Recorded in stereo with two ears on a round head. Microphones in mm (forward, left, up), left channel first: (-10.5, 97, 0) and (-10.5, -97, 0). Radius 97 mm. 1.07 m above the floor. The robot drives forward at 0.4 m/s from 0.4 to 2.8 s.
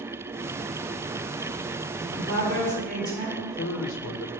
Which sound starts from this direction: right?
A woman speaking, at 1.9 s.